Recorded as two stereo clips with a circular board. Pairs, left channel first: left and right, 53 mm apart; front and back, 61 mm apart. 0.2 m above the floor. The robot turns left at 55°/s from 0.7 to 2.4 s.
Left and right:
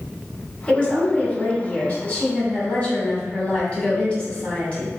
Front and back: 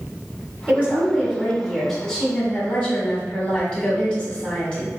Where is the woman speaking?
145° left, 1.2 m; by 4.9 s 55° left, 1.2 m.